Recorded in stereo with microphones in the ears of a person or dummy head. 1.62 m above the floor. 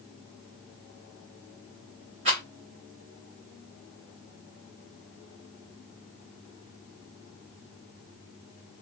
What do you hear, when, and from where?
2.2 s a rattle: 30° right (ahead or behind), 1.1 m